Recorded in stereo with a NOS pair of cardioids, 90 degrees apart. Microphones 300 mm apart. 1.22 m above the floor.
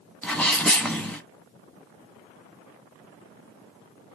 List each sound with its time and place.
0.2 s a sneeze: 5° left, 1.4 m